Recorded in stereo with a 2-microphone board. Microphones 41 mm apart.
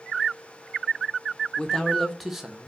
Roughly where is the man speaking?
Centre.